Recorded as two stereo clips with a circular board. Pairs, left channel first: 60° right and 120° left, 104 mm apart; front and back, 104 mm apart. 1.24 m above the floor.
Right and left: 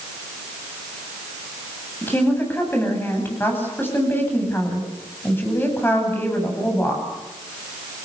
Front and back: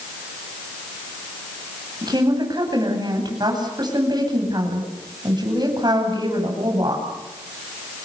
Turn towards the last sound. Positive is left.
turn(degrees=-130)